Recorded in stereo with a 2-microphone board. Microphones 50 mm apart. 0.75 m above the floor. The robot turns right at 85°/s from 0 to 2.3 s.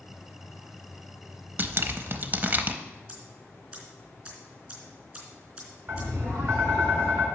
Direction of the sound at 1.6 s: 40° right (ahead or behind).